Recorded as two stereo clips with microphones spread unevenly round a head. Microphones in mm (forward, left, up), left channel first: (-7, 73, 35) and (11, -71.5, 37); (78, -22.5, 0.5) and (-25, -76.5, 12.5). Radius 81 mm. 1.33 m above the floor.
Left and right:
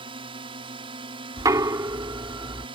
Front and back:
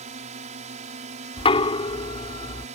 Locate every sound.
0.0 s a drone: 140° right
1.4 s knocking: 15° right